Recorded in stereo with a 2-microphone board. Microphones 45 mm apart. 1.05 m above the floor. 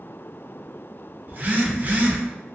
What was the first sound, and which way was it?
A phone buzzing, 40° right (ahead or behind).